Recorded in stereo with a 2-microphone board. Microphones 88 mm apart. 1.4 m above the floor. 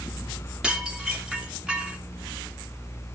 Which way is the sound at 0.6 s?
10° right (ahead or behind).